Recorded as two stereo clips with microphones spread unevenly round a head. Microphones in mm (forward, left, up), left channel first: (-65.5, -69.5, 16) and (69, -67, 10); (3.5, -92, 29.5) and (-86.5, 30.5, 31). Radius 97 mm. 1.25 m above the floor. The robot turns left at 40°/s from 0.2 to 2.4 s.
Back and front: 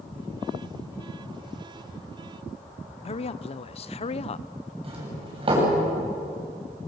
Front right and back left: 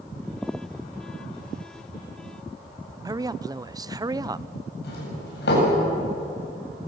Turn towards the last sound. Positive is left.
turn(degrees=-45)